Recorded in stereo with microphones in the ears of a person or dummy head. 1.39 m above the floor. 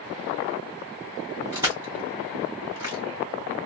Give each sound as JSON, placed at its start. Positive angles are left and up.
{"t": 1.5, "sound": "crushing", "side_deg": -15, "distance_m": 2.5}